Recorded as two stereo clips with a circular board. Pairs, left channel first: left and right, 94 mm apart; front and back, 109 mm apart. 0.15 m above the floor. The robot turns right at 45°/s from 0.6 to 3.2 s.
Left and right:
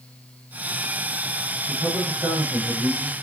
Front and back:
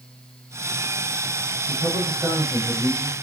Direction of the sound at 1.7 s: 150° right.